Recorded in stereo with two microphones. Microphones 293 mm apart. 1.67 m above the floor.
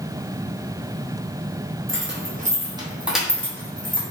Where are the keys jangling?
45° right (ahead or behind), 0.7 m; by 4.0 s 15° left (ahead or behind), 1.0 m.